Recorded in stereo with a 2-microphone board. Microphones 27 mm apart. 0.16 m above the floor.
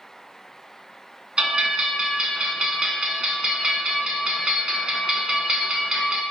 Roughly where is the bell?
Right.